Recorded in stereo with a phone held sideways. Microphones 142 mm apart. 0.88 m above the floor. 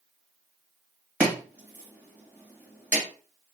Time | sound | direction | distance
1.2 | chopping | 10° right (ahead or behind) | 1.7 m